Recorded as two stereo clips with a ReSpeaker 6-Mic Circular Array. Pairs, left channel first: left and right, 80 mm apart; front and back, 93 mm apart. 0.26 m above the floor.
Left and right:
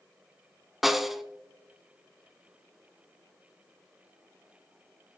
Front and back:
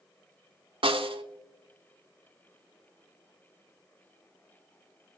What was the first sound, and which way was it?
A snare drum, straight behind.